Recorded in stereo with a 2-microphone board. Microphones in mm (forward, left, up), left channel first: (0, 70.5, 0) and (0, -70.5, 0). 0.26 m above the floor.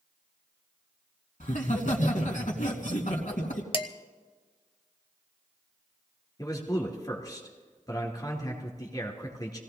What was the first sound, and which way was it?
Laughter, 65° left (ahead or behind).